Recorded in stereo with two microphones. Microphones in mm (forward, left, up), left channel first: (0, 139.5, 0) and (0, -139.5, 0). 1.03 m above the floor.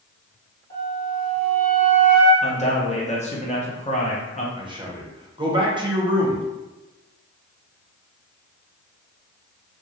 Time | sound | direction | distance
0.7 | a flute | 30° left (ahead or behind) | 1.8 m
2.4 | a man speaking | 25° left (ahead or behind) | 0.7 m
4.6 | a man speaking | 15° right (ahead or behind) | 0.8 m